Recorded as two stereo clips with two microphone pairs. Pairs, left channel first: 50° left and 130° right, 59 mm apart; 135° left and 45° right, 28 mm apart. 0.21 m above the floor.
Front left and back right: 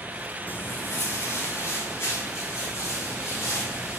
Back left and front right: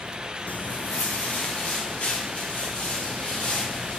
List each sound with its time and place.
0.5 s footsteps: 110° left, 0.7 m; by 4.0 s 90° left, 5.5 m